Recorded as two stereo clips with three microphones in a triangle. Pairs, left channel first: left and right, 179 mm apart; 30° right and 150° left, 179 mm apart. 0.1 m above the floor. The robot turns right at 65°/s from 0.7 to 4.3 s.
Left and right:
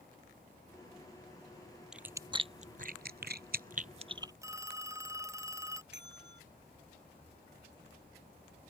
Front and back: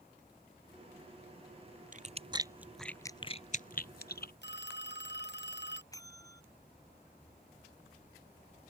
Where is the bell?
100° right.